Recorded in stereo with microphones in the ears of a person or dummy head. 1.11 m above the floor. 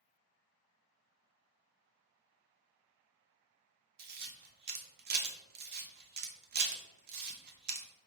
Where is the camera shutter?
50° right (ahead or behind), 0.6 m.